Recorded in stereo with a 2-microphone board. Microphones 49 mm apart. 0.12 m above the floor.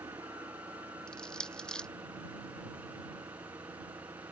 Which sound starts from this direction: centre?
Crushing, at 1.1 s.